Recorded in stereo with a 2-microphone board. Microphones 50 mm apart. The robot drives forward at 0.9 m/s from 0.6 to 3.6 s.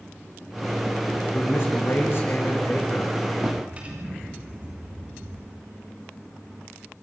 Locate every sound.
1.3 s a man speaking: 55° left (ahead or behind), 6.5 m; by 3.2 s 45° left (ahead or behind), 7.5 m
3.4 s a drawer: 30° right (ahead or behind), 6 m; by 5.5 s 25° right (ahead or behind), 6 m